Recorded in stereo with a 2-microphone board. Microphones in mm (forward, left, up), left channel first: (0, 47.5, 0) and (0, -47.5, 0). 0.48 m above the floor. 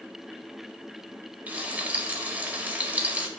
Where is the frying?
15° right (ahead or behind), 1.4 m.